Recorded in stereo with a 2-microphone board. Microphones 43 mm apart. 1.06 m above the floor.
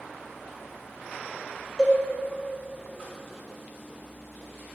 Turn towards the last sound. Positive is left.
turn(degrees=20)  # may be behind; listen again after turning